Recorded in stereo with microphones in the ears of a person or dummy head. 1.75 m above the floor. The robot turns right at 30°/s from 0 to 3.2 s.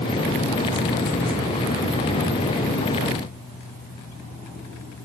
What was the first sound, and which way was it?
Only background noise.